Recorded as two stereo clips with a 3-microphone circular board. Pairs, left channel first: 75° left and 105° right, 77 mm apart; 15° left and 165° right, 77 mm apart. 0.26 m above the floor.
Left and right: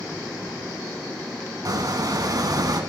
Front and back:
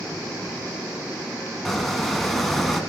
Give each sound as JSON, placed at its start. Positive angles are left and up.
{"t": 1.6, "sound": "a squeak", "azimuth_deg": -70, "distance_m": 1.2}